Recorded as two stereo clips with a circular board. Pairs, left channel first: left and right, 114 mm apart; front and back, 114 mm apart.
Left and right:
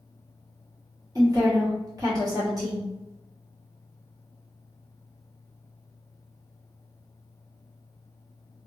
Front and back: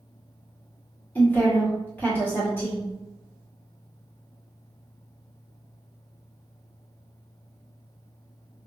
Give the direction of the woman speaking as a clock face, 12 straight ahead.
2 o'clock.